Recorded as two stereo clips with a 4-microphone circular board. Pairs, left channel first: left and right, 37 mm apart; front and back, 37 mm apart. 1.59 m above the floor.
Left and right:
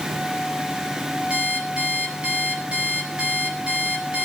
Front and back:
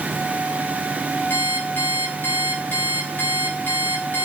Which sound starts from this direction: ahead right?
An alarm clock, at 1.3 s.